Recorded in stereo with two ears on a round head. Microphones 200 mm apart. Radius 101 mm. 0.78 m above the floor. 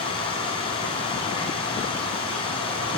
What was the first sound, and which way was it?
Running water, 25° left (ahead or behind).